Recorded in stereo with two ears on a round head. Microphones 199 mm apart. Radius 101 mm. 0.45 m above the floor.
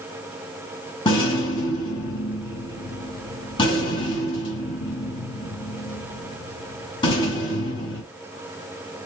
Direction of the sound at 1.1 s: 20° left (ahead or behind).